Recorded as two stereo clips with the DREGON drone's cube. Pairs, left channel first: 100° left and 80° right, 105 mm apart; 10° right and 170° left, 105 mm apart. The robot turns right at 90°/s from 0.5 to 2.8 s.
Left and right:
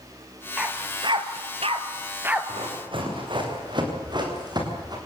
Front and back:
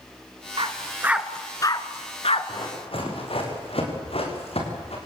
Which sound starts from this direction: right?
Running footsteps, at 2.5 s.